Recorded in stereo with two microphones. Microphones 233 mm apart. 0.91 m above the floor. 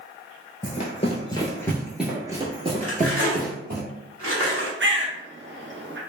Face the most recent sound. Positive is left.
turn(degrees=-55)  # may be behind; listen again after turning